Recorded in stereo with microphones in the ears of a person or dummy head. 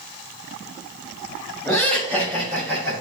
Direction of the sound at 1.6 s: 10° left (ahead or behind).